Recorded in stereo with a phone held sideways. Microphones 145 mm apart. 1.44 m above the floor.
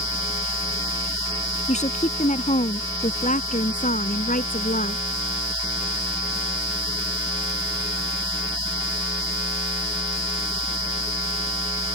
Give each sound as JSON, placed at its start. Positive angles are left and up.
{"t": 1.7, "sound": "a woman speaking", "side_deg": 50}